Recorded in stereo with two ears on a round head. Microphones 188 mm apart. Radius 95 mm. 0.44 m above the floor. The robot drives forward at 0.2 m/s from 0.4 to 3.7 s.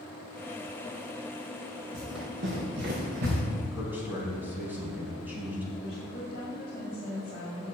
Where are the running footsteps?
65° right (ahead or behind), 4.5 m; by 3.4 s 55° right (ahead or behind), 5 m.